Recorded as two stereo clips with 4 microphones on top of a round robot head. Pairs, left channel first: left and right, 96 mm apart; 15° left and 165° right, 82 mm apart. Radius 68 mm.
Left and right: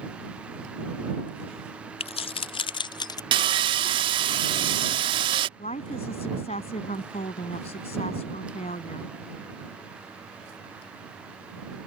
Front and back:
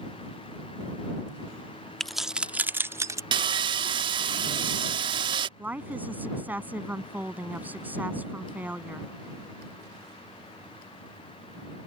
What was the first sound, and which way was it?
Keys jangling, 100° left.